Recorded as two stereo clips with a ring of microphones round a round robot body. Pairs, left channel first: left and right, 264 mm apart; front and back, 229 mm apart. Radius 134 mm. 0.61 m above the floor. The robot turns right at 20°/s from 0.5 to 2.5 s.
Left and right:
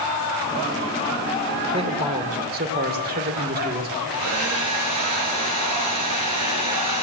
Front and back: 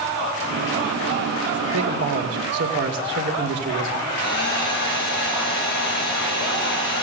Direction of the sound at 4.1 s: 60° right.